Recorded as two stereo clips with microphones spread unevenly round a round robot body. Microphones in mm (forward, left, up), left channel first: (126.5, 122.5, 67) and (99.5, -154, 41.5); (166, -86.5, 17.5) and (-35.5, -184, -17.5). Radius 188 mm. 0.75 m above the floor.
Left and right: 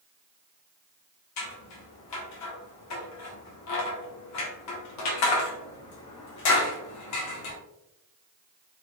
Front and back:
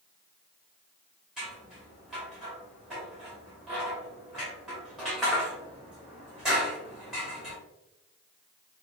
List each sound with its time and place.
1.4 s scissors: 120° left, 0.6 m